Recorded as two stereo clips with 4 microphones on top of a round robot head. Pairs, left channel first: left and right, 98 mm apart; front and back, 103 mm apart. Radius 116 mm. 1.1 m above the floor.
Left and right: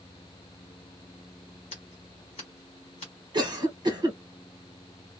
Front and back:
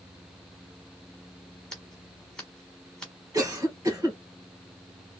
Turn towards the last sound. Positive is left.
turn(degrees=-125)